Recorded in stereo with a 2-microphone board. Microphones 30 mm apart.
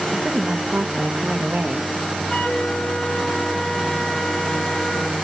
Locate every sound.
0.1 s a woman speaking: 50° right (ahead or behind), 0.6 m
2.3 s a flute: 25° left (ahead or behind), 1.2 m